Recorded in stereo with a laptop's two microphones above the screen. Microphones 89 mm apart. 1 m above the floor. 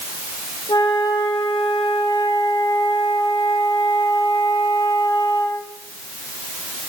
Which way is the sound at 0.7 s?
55° left (ahead or behind).